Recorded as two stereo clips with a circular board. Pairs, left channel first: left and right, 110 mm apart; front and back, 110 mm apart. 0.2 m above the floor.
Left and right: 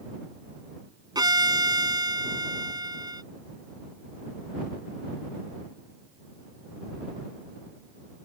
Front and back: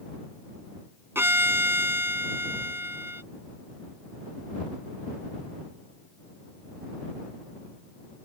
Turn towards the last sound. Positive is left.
turn(degrees=-120)